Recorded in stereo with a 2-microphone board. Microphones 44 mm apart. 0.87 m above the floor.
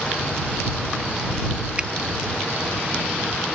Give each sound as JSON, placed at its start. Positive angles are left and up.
{"t": 1.8, "sound": "a finger snap", "side_deg": -25}